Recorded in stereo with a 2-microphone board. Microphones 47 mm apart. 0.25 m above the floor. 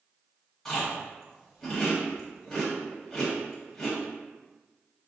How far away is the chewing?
About 1.2 m.